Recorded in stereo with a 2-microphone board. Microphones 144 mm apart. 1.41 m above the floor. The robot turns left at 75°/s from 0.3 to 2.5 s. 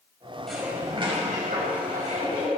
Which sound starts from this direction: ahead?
Dishes clattering, at 0.5 s.